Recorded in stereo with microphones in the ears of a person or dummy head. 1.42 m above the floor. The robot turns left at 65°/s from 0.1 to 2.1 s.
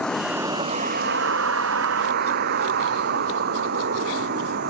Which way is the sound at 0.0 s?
5° left.